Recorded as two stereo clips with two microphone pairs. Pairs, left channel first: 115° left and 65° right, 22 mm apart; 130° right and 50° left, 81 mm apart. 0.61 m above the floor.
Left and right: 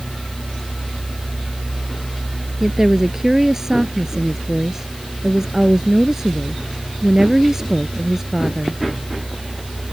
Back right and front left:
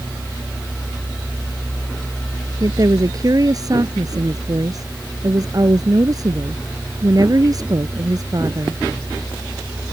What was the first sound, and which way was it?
A woman speaking, 10° left.